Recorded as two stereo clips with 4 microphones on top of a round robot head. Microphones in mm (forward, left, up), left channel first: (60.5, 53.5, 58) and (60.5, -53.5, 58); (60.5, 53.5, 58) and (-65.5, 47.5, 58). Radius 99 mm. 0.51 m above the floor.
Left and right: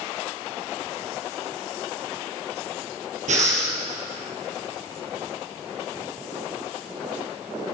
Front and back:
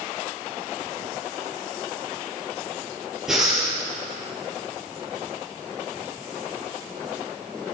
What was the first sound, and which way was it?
Breathing, 90° right.